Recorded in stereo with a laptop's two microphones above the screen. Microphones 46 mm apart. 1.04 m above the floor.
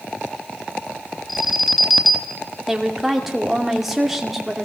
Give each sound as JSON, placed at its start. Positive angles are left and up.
{"t": 1.3, "sound": "an alarm", "side_deg": 0, "distance_m": 2.0}
{"t": 2.7, "sound": "a woman speaking", "side_deg": -5, "distance_m": 2.0}